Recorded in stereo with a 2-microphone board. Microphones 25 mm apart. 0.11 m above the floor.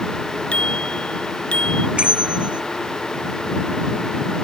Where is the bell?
50° right (ahead or behind).